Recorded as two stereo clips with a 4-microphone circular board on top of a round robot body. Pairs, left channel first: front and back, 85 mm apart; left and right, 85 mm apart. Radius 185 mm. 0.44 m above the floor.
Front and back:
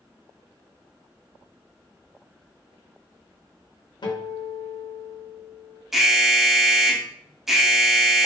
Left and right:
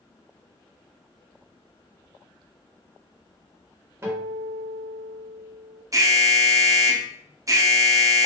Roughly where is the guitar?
Ahead right.